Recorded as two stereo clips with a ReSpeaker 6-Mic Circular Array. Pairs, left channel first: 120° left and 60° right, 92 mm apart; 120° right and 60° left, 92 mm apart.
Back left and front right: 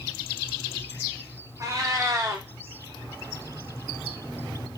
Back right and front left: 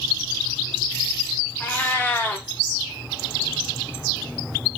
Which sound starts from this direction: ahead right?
A cat meowing, at 1.6 s.